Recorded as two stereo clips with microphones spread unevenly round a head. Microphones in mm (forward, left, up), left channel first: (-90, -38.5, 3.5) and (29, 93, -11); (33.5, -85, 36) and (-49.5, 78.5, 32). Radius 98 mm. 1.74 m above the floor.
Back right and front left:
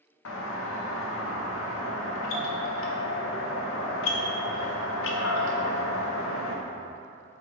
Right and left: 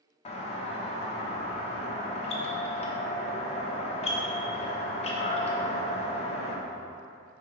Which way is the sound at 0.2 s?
120° right.